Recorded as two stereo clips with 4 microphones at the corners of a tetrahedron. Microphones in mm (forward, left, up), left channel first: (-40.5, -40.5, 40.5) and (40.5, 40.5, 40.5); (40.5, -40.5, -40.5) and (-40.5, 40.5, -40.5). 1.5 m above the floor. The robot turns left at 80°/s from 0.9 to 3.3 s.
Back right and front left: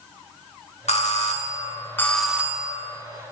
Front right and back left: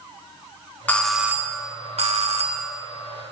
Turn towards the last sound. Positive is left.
turn(degrees=50)